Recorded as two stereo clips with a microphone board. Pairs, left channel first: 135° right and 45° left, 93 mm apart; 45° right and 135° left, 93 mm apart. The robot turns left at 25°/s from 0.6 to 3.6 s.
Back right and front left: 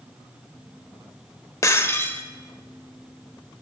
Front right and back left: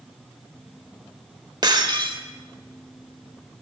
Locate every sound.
1.6 s breaking glass: 170° left, 1.0 m; by 2.2 s 155° left, 1.0 m